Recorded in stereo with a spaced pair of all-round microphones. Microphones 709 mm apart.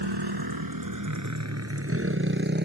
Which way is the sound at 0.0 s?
35° right (ahead or behind).